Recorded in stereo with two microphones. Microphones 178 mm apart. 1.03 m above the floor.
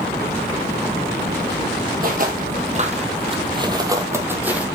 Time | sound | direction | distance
2.0 | footsteps | 55° right (ahead or behind) | 2 m